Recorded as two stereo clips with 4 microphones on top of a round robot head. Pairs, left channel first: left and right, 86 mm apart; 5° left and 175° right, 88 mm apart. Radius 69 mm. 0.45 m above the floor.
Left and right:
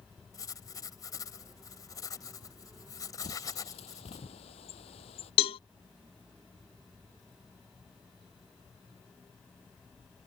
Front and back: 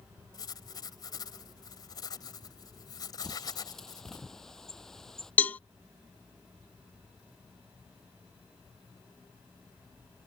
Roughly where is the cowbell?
Left.